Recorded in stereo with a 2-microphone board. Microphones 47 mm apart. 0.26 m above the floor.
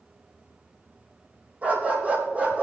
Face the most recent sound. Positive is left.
turn(degrees=-35)  # may be behind; listen again after turning